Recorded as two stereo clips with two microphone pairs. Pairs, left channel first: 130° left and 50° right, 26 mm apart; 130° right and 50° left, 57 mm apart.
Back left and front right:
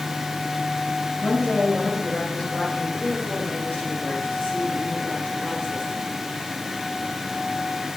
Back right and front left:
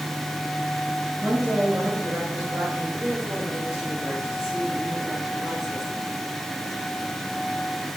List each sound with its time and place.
1.2 s a woman speaking: 100° left, 3 m; by 6.1 s 145° left, 4 m